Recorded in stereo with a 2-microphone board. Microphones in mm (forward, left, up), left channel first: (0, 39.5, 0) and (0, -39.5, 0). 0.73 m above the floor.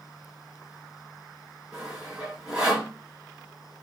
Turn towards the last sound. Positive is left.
turn(degrees=-15)  # may be behind; listen again after turning